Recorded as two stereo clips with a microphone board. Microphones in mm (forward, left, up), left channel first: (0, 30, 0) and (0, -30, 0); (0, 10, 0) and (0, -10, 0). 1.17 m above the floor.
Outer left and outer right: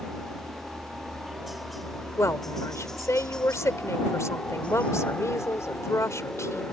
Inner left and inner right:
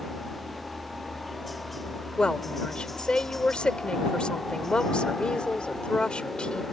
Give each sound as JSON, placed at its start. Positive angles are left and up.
{"t": 0.0, "sound": "a helicopter", "side_deg": -15}
{"t": 2.2, "sound": "a woman speaking", "side_deg": 55}